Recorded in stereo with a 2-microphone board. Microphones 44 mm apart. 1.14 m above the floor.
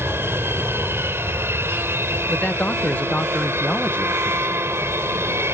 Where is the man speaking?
30° left (ahead or behind).